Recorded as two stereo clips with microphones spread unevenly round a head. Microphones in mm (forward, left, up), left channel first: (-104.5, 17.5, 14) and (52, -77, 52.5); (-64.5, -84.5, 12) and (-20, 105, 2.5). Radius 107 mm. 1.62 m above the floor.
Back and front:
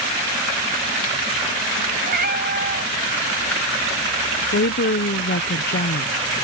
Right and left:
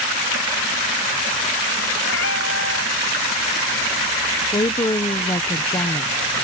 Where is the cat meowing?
65° right; by 5.5 s 70° right.